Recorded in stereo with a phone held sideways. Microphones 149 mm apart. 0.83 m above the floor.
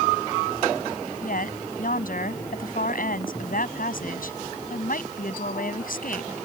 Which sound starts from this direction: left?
A woman speaking, at 1.2 s.